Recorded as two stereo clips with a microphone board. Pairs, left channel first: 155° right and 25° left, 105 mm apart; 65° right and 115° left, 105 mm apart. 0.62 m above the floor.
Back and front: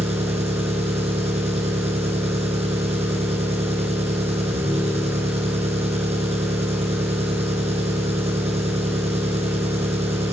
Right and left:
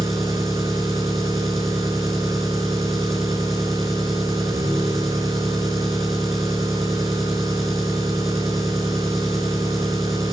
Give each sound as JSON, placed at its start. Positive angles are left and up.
{"t": 0.0, "sound": "an engine running", "azimuth_deg": 25, "distance_m": 3.0}